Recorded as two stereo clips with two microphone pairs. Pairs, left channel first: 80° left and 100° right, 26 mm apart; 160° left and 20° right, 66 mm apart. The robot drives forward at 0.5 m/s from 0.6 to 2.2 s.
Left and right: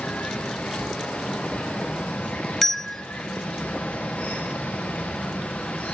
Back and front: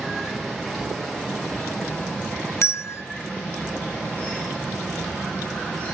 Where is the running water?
80° left, 5.5 m; by 5.9 s 85° left, 5 m.